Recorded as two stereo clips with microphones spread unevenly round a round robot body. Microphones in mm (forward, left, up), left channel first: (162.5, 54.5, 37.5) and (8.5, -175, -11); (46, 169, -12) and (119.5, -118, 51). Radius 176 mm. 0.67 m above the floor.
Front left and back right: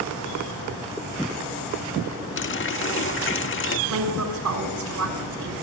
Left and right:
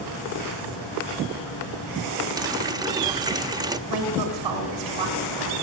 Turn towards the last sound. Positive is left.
turn(degrees=-110)